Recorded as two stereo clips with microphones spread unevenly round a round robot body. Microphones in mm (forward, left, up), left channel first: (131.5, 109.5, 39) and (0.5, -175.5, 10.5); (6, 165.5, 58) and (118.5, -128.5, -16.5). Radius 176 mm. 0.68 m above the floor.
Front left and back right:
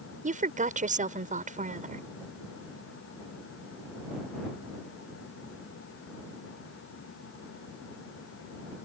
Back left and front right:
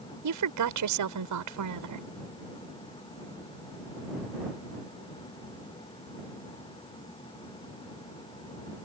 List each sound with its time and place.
0.2 s a woman speaking: 50° right